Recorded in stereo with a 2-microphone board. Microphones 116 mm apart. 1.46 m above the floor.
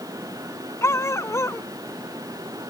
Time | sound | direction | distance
0.8 | a dog barking | 25° left (ahead or behind) | ?